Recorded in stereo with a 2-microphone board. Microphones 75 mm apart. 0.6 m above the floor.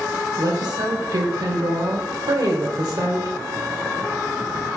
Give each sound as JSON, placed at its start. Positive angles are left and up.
{"t": 0.4, "sound": "a woman speaking", "side_deg": -65, "distance_m": 2.0}